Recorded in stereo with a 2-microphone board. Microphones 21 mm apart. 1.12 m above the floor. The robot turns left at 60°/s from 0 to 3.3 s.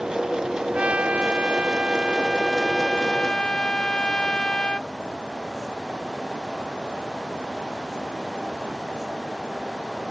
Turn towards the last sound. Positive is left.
turn(degrees=140)